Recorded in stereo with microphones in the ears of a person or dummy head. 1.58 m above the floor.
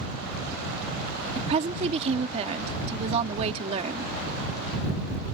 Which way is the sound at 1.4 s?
35° right (ahead or behind).